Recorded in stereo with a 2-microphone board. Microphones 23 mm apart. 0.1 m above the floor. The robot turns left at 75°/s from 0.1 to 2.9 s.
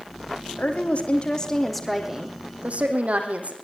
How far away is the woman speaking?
About 5 m.